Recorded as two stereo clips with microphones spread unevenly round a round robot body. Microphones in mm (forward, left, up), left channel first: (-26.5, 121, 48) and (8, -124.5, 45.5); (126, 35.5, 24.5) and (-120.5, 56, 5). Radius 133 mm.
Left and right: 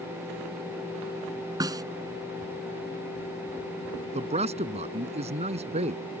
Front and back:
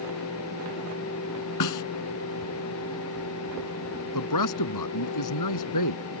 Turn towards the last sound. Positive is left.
turn(degrees=-15)